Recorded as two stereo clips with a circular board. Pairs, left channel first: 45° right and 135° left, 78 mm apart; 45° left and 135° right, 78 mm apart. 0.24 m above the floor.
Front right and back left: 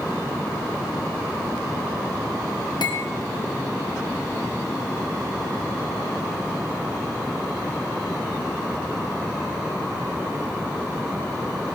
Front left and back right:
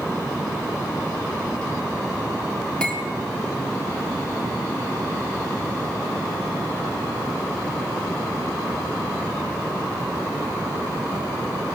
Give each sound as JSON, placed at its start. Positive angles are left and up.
{"t": 2.8, "sound": "cutlery clinking", "azimuth_deg": -35, "distance_m": 4.0}